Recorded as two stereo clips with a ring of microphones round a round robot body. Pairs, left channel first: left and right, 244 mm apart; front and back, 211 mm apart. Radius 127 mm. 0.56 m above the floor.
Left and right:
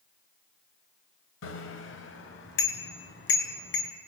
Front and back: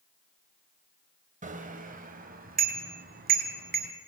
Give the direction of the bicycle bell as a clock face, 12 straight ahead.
8 o'clock.